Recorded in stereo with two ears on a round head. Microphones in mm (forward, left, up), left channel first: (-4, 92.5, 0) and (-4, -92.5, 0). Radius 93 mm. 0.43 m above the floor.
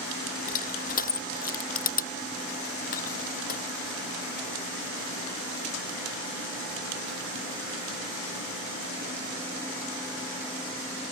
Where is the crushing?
45° left (ahead or behind).